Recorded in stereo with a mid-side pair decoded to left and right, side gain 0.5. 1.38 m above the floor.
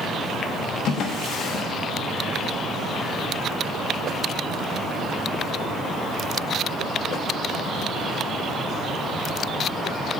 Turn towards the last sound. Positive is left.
turn(degrees=65)